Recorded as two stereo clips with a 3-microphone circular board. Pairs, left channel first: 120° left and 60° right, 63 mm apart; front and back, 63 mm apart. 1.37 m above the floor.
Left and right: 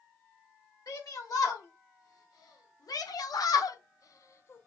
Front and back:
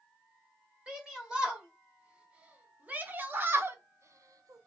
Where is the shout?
100° left, 3 m; by 4.7 s 175° left, 0.8 m.